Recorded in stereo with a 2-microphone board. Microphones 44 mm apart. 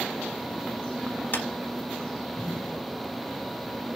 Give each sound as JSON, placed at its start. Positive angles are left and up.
{"t": 1.3, "sound": "a clap", "side_deg": 45, "distance_m": 1.6}